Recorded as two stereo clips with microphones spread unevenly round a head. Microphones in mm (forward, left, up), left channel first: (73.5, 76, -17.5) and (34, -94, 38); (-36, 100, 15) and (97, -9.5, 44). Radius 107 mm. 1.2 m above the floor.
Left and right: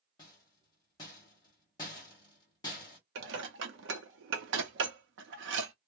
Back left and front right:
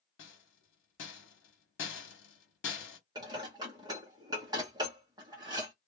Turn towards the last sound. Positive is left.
turn(degrees=-110)